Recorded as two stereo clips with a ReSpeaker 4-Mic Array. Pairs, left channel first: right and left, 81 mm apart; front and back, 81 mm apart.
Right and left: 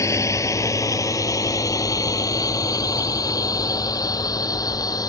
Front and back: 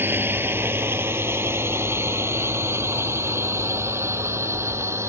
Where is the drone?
125° right.